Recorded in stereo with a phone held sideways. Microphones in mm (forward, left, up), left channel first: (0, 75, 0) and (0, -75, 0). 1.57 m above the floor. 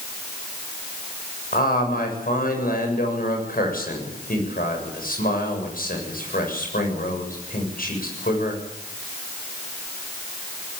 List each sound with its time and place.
1.5 s a man speaking: 75° left (ahead or behind), 7.5 m